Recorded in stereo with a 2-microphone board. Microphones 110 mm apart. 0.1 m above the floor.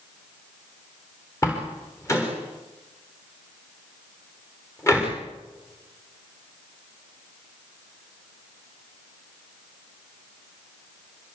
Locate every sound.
1.4 s a door slam: 25° left (ahead or behind), 9.5 m